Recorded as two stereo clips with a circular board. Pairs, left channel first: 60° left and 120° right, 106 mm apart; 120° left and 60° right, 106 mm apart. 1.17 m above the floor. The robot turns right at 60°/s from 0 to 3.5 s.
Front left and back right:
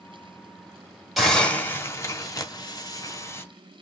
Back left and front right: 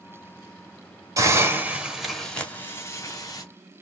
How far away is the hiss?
About 1.1 m.